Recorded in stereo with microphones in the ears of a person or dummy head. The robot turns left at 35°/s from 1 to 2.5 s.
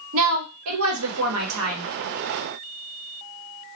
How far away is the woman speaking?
About 1.0 m.